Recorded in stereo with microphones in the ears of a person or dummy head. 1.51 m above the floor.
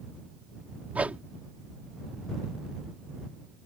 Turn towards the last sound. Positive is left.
turn(degrees=-5)  # may be behind; listen again after turning